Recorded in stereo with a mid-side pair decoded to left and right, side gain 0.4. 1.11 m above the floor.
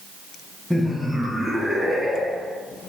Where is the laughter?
15° left, 1.1 m; by 2.6 s 10° left, 2 m.